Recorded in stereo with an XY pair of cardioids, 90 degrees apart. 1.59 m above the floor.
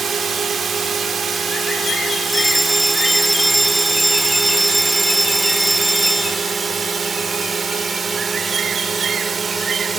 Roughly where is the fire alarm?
Ahead.